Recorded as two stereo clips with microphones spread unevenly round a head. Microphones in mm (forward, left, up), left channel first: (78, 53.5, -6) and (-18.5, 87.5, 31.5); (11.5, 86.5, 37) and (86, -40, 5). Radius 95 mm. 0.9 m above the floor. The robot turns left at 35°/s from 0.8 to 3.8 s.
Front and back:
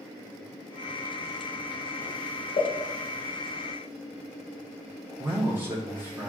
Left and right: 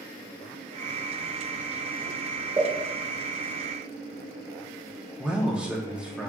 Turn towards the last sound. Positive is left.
turn(degrees=-110)